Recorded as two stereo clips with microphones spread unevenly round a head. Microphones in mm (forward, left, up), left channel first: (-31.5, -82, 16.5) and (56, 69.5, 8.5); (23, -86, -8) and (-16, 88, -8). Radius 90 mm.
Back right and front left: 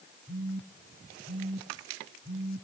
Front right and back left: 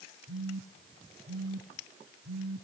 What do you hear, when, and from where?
0.3 s a phone buzzing: 110° left, 4 m